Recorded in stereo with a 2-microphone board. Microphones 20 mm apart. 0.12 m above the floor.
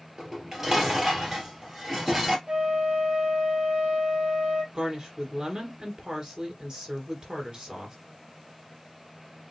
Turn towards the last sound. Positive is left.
turn(degrees=-40)  # may be behind; listen again after turning